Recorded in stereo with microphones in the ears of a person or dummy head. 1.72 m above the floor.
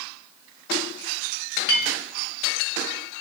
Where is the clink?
55° left (ahead or behind), 1.6 m.